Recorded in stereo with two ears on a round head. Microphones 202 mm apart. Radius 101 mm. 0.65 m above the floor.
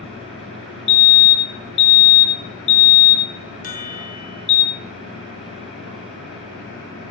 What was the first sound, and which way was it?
A fire alarm, 50° left (ahead or behind).